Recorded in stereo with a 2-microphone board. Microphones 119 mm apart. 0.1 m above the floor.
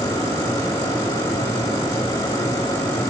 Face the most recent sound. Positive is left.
No sound to turn to.